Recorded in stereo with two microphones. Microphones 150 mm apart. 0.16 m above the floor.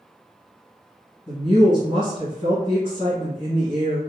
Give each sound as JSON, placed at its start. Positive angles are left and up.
{"t": 1.3, "sound": "a woman speaking", "side_deg": 35, "distance_m": 1.7}